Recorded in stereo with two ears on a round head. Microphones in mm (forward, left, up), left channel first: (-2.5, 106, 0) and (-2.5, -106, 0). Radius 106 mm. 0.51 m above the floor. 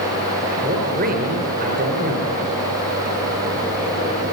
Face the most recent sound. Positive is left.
turn(degrees=-40)  # may be behind; listen again after turning